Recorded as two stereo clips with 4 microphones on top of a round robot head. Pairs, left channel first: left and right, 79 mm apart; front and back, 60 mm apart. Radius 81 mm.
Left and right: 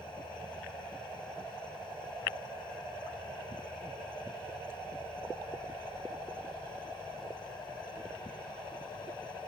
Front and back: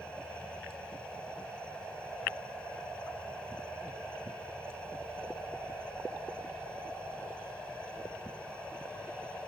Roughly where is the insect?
Left.